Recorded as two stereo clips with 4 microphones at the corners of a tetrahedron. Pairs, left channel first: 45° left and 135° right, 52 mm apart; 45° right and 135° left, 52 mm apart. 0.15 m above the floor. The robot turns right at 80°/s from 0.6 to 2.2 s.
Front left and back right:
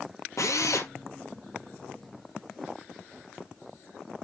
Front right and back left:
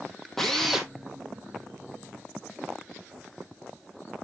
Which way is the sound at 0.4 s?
40° left.